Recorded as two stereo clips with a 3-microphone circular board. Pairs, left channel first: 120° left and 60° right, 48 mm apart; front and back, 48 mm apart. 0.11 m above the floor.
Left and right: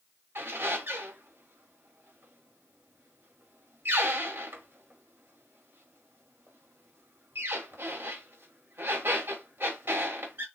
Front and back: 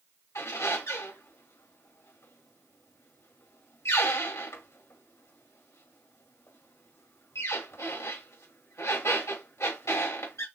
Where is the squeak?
10° right, 2.5 m.